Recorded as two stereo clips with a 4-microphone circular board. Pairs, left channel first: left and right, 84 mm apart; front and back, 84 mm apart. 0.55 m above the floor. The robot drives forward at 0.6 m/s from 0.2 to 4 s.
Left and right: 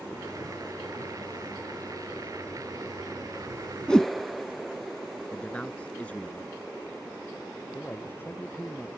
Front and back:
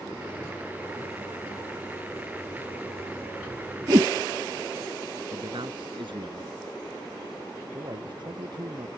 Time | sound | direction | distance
3.9 | a whoosh | 165° left | ?
5.3 | a man speaking | 165° left | ?
7.7 | a man speaking | 155° left | ?